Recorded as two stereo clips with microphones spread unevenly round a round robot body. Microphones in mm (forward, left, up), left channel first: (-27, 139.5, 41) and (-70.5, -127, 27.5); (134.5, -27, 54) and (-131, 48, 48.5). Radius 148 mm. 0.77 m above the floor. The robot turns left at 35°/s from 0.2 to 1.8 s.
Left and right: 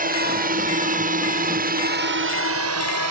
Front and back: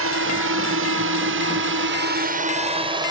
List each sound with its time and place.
0.0 s a drone: 155° right; by 3.1 s 120° right